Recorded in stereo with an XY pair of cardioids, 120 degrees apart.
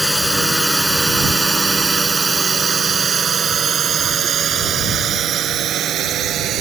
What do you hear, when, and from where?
0.0 s a drone: straight ahead; by 6.6 s 60° right